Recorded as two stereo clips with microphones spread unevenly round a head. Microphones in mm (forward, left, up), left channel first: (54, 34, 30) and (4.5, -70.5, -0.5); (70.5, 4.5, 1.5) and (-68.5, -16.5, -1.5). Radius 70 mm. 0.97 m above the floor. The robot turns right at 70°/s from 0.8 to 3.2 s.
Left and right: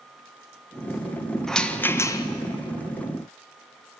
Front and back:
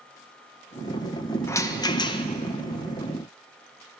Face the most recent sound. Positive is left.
turn(degrees=75)